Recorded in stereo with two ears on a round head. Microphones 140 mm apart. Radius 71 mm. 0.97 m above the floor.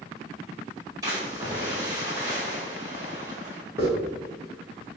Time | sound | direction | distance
1.0 | a splash | 20° right (ahead or behind) | 1.8 m
3.8 | a hiss | 20° right (ahead or behind) | 1.2 m